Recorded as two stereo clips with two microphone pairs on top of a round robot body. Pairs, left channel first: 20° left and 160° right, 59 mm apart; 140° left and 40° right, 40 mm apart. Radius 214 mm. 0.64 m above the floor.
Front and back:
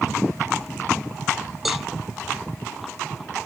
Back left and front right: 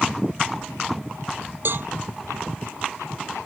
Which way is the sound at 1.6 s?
70° right.